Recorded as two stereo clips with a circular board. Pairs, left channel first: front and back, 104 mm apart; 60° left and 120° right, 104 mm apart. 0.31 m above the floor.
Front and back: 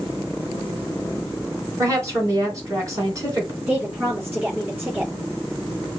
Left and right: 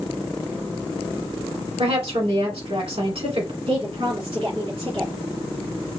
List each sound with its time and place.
1.8 s a woman speaking: 125° right, 2.5 m
3.7 s a woman speaking: 110° right, 3.5 m